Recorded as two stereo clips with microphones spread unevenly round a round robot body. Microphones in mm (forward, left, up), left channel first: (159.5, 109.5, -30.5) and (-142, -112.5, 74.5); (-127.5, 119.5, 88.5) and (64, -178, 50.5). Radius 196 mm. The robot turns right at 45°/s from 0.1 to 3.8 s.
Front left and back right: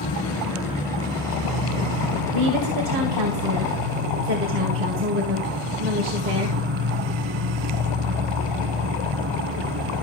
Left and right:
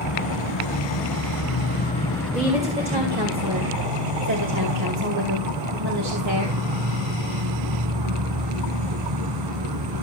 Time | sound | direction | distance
0.0 | an insect | 110° left | 1.8 m
2.3 | a woman speaking | 145° right | 2.5 m